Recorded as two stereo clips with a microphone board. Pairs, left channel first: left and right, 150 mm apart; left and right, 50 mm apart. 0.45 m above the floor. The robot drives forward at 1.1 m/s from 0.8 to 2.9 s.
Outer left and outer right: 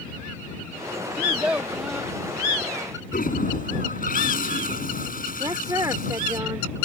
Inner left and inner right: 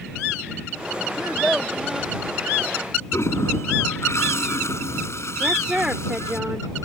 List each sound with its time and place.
1.2 s a child speaking: 10° right (ahead or behind); by 2.1 s 5° right (ahead or behind)
3.1 s a toilet flushing: 70° left (ahead or behind)
5.4 s a woman speaking: 25° right (ahead or behind)